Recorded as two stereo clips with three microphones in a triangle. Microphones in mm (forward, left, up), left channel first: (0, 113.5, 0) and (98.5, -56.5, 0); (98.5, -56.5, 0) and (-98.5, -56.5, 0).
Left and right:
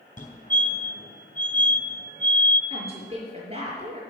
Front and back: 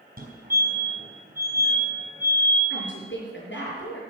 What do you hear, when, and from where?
0.2 s a fire alarm: 155° left, 4 m
2.7 s a woman speaking: 5° right, 6 m